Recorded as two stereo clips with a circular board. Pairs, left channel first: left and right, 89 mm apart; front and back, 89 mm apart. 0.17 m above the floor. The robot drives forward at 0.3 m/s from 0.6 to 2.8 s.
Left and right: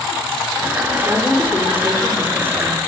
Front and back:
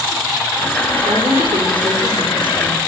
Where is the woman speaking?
160° right, 6.5 m.